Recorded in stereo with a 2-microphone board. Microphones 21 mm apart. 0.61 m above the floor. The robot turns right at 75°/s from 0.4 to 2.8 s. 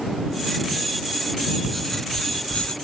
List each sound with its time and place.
1.6 s writing: 5° right; by 2.8 s 80° left